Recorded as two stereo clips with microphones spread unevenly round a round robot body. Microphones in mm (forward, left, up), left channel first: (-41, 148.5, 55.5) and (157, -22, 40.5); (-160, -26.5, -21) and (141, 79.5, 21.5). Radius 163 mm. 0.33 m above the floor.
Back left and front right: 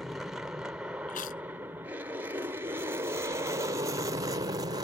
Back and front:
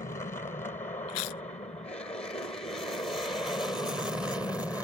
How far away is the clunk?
No clunk in this recording.